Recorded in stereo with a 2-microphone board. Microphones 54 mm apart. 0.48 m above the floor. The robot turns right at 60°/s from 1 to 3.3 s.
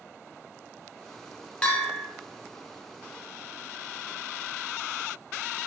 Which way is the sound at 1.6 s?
15° left (ahead or behind).